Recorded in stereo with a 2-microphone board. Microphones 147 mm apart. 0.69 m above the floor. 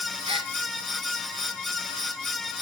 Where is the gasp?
40° right (ahead or behind), 1.4 m.